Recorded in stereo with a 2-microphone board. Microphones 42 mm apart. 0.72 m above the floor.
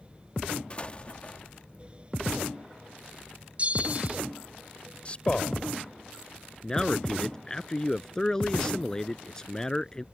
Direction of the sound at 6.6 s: 15° left (ahead or behind).